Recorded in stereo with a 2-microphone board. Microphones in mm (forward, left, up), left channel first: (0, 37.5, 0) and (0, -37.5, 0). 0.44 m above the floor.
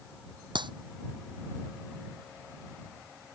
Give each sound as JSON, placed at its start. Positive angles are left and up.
{"t": 0.6, "sound": "a clap", "side_deg": -85}